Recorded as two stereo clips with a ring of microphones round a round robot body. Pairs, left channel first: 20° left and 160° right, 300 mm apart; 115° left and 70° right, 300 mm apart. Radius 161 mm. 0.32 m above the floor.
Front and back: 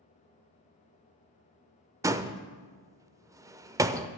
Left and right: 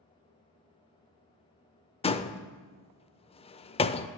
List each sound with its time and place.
2.0 s a door slam: 140° left, 0.5 m